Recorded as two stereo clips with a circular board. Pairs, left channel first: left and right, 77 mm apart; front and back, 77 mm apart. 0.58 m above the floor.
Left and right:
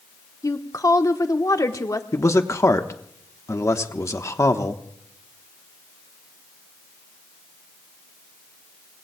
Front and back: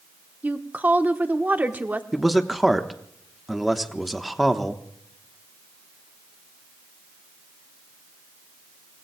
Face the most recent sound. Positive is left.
turn(degrees=95)